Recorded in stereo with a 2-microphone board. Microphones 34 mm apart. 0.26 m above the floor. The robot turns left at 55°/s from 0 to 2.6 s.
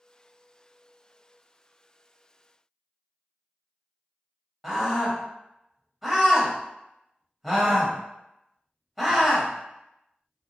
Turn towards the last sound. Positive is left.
turn(degrees=-5)  # may be behind; listen again after turning